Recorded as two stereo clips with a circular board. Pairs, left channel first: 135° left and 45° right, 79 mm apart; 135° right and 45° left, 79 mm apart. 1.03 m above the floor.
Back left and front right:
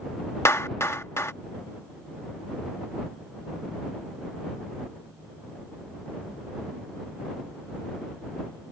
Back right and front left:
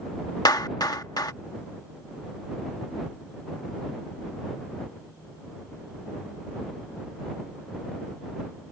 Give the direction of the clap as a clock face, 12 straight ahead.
6 o'clock.